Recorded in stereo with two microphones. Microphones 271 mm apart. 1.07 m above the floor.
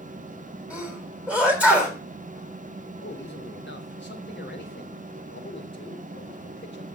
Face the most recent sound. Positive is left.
turn(degrees=40)  # may be behind; listen again after turning